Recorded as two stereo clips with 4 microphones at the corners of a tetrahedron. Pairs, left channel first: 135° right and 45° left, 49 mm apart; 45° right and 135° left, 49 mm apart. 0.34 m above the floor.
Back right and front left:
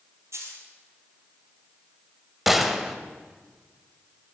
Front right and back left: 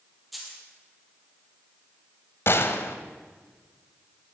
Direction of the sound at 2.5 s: 40° right.